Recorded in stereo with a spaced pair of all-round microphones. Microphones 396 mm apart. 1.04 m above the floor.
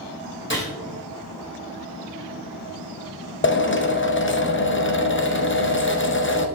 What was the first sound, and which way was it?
A gunshot, 30° left (ahead or behind).